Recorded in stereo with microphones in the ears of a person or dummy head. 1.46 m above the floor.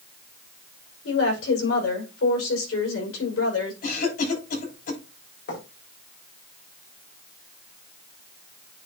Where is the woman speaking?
90° left, 5.5 m.